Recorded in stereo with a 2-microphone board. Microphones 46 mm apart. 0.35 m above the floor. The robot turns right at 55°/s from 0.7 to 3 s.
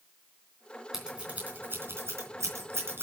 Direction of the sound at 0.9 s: 10° right (ahead or behind).